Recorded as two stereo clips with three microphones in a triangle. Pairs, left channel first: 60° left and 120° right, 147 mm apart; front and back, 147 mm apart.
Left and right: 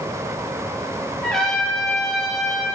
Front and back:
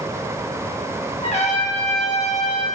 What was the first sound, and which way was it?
A trumpet, 25° right.